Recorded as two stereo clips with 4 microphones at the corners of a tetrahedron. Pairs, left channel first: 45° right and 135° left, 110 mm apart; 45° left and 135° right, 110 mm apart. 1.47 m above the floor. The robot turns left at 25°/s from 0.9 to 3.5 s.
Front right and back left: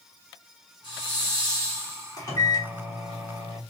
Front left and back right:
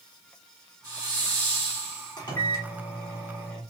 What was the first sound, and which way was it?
A hiss, 85° right.